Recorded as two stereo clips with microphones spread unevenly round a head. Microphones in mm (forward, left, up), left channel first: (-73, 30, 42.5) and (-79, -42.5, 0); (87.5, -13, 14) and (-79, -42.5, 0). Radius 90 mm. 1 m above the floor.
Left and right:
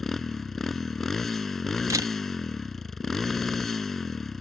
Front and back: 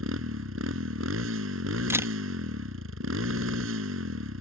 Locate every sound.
0.0 s a motorcycle: 165° left
1.9 s a camera shutter: 95° right